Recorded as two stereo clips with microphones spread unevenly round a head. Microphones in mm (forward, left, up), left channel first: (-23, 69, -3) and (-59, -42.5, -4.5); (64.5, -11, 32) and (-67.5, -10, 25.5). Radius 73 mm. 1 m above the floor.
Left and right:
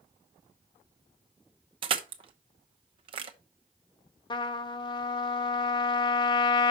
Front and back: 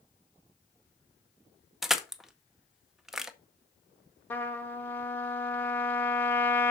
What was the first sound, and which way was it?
Crushing, 95° right.